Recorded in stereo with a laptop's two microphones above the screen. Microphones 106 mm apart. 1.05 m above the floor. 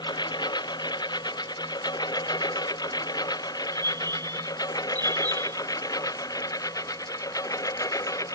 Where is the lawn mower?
40° left (ahead or behind); by 8.4 s 30° left (ahead or behind).